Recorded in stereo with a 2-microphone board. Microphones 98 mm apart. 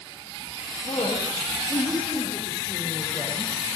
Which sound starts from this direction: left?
A woman speaking, at 0.8 s.